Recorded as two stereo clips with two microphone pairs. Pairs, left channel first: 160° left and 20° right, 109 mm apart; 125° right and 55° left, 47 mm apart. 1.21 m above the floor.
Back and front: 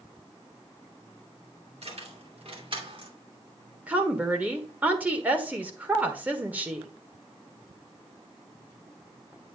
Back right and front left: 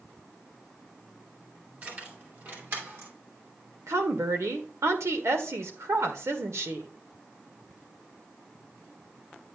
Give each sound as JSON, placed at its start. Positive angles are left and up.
{"t": 1.8, "sound": "keys jangling", "azimuth_deg": 0, "distance_m": 2.0}
{"t": 3.9, "sound": "a woman speaking", "azimuth_deg": 55, "distance_m": 1.5}